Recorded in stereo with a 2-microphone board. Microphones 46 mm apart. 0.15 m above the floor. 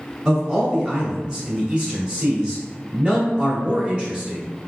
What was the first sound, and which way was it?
A man speaking, 20° right (ahead or behind).